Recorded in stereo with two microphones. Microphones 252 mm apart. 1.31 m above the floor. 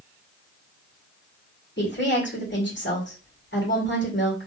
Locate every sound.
1.8 s a woman speaking: 50° left (ahead or behind), 1.8 m